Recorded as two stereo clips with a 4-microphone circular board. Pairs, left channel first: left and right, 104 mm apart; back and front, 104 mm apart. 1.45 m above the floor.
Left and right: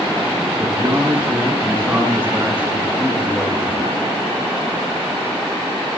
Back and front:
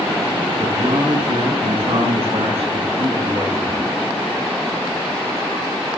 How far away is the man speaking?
About 6 m.